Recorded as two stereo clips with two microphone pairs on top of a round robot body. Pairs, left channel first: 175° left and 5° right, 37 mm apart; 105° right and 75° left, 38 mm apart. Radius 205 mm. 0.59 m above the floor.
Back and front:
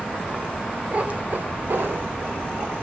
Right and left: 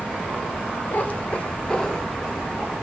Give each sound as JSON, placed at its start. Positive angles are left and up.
{"t": 0.9, "sound": "a cat meowing", "azimuth_deg": -60, "distance_m": 1.6}